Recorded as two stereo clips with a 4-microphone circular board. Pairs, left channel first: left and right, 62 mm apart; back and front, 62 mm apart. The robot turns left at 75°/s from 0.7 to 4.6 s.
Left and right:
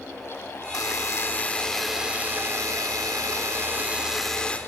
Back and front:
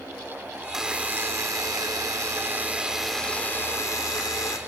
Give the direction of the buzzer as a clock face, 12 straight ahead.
9 o'clock.